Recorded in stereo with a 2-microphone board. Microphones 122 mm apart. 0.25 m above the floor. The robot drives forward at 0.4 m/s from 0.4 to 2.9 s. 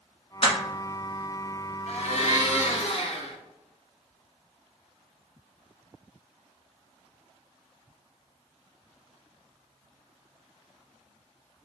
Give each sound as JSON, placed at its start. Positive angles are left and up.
{"t": 0.4, "sound": "crushing", "side_deg": 55, "distance_m": 1.1}
{"t": 1.9, "sound": "a blender", "side_deg": 65, "distance_m": 1.1}